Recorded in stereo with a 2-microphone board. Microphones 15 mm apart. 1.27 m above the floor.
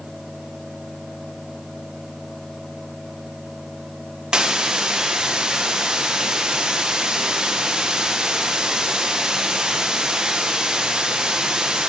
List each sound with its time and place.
4.3 s a hiss: 70° right (ahead or behind), 1.2 m